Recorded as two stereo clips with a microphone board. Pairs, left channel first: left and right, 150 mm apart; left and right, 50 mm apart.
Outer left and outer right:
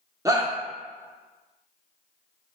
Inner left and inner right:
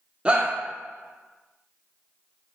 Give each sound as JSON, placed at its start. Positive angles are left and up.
{"t": 0.2, "sound": "a shout", "side_deg": -20, "distance_m": 0.7}